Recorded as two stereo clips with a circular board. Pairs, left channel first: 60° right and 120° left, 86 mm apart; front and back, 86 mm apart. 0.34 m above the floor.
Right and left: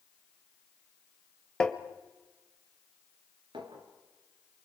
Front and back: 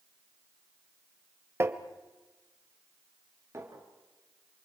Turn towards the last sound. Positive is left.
turn(degrees=125)